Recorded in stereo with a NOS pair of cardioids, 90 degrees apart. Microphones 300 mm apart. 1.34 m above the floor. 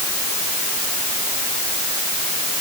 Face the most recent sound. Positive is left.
No sound to turn to.